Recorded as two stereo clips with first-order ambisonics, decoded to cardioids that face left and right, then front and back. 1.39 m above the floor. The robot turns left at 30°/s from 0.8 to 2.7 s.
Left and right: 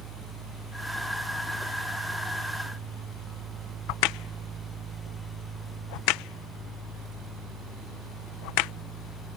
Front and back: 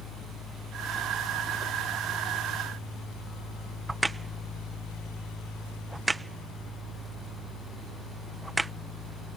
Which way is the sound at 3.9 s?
100° left.